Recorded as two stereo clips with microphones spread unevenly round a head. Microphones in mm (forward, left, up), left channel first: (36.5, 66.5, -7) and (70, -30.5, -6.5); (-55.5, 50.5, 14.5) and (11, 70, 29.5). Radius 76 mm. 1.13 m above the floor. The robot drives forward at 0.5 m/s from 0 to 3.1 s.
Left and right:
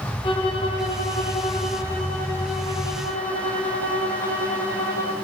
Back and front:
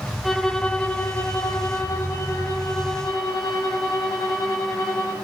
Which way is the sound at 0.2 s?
120° left.